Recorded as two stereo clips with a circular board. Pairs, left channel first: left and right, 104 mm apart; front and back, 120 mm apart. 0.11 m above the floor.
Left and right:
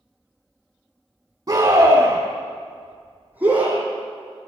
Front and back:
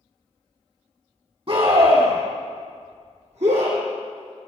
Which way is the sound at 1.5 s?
145° right.